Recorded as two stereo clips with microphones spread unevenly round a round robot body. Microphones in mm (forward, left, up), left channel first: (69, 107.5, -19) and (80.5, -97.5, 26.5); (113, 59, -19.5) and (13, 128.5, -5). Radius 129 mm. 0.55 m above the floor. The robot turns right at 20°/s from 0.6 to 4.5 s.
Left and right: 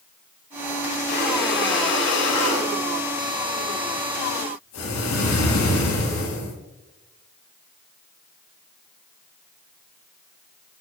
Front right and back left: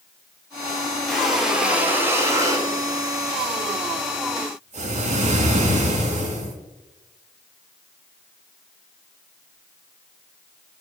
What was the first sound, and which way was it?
Breathing, 55° left.